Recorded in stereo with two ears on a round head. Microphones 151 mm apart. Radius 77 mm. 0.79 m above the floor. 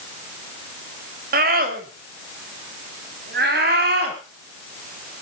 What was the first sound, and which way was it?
A scream, 55° right (ahead or behind).